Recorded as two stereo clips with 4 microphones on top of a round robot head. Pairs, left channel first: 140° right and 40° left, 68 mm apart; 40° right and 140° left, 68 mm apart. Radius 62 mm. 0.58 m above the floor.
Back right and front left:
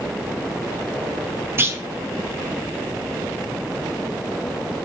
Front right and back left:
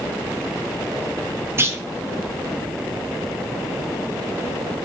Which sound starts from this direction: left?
A clunk, at 1.6 s.